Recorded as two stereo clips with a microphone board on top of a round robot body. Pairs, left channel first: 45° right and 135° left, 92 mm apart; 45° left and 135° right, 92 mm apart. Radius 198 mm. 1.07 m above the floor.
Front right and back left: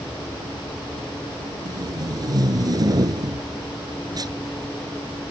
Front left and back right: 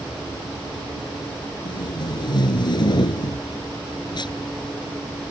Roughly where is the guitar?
I don't hear a guitar.